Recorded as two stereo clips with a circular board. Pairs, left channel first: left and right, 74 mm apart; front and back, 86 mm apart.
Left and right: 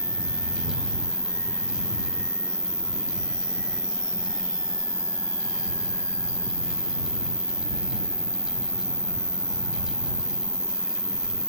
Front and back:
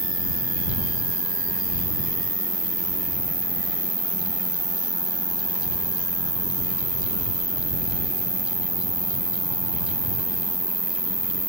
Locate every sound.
0.0 s an insect: 25° left